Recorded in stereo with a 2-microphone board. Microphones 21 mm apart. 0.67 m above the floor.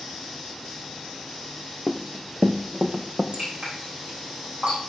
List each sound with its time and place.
1.9 s running footsteps: 5° left (ahead or behind), 0.8 m; by 3.2 s 60° right (ahead or behind), 1.8 m
3.3 s dripping: 85° right, 8 m